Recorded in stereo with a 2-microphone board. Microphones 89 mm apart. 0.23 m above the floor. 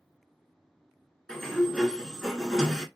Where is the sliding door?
5° left (ahead or behind), 0.9 m.